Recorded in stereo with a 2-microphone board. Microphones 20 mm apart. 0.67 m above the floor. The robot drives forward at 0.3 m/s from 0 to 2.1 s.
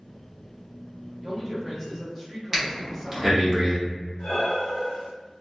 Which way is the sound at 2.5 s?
10° right (ahead or behind).